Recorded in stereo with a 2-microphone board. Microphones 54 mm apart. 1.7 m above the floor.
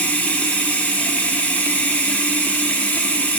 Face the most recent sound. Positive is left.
turn(degrees=30)  # may be behind; listen again after turning